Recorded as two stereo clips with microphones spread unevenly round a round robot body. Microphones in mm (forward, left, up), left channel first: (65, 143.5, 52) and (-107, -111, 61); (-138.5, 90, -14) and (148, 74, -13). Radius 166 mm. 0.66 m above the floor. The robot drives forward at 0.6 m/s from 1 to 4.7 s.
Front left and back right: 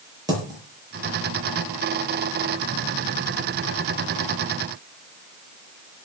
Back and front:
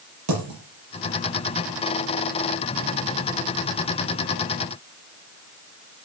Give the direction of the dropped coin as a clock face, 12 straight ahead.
2 o'clock.